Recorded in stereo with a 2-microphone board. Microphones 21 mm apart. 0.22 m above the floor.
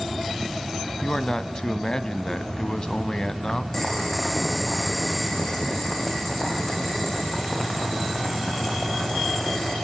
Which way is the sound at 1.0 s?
35° left (ahead or behind).